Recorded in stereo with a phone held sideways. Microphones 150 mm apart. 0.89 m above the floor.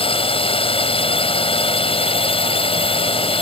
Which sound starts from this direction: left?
A drone, at 0.0 s.